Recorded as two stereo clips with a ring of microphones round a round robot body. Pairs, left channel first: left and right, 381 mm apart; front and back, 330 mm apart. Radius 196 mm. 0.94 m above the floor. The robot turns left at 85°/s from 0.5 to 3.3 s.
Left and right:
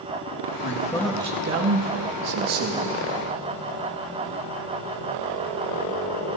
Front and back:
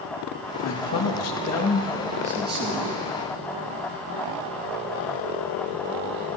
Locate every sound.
0.6 s a man speaking: 40° left, 1.6 m; by 3.0 s 165° right, 1.6 m